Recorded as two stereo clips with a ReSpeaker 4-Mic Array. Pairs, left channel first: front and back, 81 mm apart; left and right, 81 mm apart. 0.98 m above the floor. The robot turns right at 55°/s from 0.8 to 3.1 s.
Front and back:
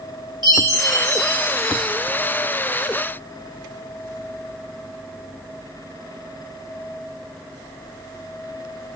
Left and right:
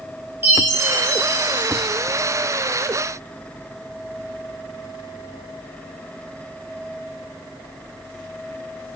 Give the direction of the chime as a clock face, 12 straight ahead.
5 o'clock.